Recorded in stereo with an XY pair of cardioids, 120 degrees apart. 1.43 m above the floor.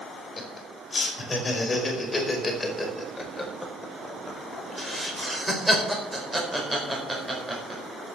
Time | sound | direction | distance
0.4 | laughter | 30° left | 5 m